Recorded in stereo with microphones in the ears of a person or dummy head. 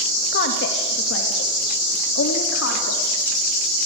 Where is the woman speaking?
60° left (ahead or behind), 2.5 m; by 3.1 s 90° left, 4.5 m.